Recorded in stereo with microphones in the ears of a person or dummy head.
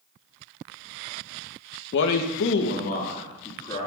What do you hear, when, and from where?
1.9 s a man speaking: 65° left (ahead or behind), 0.7 m; by 3.9 s 20° left (ahead or behind), 1.8 m